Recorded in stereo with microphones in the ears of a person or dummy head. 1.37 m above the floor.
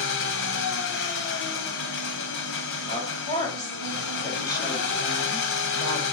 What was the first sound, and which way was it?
An engine running, 65° left (ahead or behind).